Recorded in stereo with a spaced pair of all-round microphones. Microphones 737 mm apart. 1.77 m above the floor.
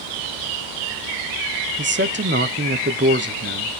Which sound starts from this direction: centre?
A man speaking, at 1.8 s.